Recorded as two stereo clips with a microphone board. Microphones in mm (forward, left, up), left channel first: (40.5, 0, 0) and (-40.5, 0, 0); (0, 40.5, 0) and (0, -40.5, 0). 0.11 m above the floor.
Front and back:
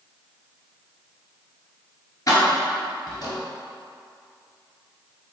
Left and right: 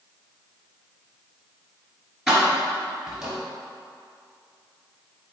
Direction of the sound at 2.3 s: 5° right.